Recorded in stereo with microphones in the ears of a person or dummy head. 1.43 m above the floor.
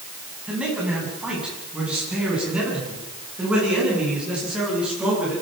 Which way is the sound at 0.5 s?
5° right (ahead or behind).